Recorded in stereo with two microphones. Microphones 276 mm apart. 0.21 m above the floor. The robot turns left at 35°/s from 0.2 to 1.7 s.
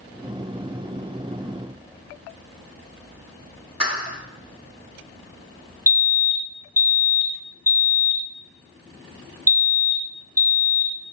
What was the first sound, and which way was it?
A clap, 20° right (ahead or behind).